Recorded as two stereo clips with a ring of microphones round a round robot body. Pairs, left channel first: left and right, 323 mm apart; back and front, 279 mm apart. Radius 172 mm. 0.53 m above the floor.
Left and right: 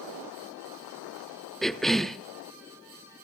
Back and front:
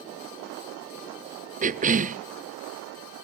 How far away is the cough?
About 0.7 m.